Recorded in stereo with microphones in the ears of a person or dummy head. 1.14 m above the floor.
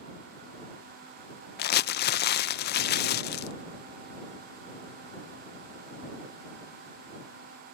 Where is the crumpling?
50° left (ahead or behind).